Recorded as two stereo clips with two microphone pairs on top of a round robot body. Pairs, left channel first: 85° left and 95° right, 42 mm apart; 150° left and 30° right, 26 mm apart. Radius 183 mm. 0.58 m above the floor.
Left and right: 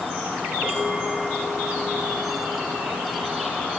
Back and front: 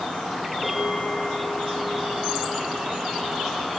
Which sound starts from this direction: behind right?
A bell, at 0.6 s.